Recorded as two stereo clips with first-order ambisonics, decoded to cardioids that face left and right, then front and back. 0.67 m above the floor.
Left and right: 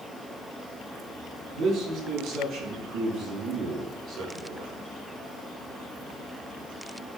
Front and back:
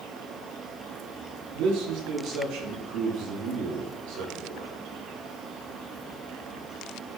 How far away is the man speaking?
About 4.5 m.